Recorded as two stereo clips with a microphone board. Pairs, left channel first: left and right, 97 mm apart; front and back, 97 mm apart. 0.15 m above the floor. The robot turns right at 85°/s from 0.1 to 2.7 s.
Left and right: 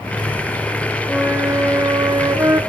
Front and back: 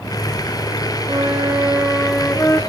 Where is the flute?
170° right, 1.1 m; by 2.6 s 40° right, 1.1 m.